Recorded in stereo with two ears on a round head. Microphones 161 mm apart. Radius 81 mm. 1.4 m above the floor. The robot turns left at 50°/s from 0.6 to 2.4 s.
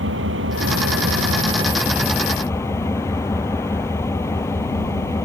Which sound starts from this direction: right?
An engine running, at 0.0 s.